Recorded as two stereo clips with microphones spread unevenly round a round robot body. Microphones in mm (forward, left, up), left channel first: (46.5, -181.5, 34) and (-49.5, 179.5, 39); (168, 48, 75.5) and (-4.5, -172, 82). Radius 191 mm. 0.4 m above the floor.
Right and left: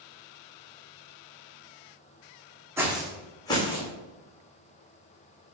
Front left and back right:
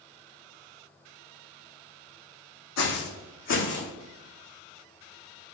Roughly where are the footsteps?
Ahead.